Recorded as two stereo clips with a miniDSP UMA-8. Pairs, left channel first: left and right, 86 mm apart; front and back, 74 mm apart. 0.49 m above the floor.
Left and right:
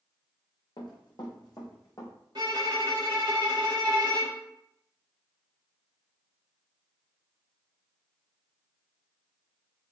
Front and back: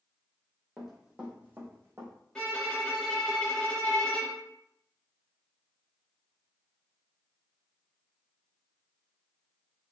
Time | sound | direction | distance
0.8 | running footsteps | 95° left | 1.0 m
2.4 | a violin | 75° right | 0.8 m